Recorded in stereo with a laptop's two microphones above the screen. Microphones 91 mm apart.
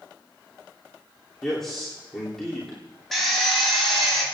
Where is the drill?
Centre (ahead or behind), 4 m.